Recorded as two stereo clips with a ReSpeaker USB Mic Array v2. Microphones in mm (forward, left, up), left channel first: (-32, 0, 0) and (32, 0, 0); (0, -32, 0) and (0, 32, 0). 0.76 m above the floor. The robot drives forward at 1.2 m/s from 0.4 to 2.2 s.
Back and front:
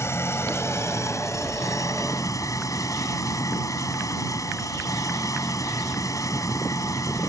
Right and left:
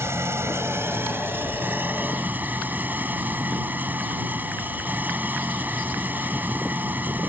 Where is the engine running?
135° left; by 7.3 s 150° left.